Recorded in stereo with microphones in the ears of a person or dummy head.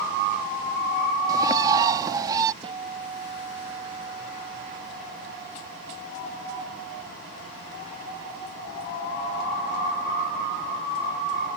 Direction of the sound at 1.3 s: 25° right (ahead or behind).